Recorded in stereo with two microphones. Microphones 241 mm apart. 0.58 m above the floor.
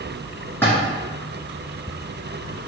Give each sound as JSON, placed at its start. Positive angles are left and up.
{"t": 0.6, "sound": "a splash", "side_deg": 10, "distance_m": 1.8}